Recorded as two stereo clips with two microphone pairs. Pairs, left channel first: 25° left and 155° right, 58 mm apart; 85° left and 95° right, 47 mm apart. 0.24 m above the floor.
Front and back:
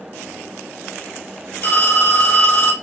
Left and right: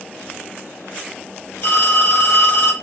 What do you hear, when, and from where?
1.6 s a phone ringing: 45° left, 1.5 m